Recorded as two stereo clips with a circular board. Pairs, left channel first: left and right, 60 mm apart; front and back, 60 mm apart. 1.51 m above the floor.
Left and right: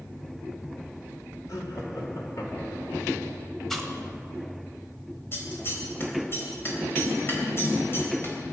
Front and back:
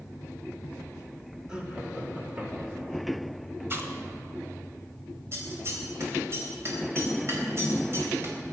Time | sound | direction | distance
1.5 | laughter | 105° left | 3 m
3.7 | chewing | 170° left | 1.6 m
5.3 | scissors | 135° left | 3.5 m